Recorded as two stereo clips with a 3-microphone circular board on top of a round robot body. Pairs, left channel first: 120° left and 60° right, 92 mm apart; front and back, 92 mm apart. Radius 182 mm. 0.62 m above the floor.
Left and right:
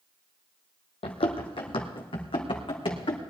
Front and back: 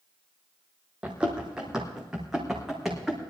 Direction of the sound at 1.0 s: 100° left.